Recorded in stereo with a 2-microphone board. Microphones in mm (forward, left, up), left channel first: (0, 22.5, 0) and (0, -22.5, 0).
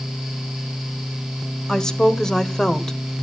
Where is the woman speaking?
10° left (ahead or behind), 1.8 m.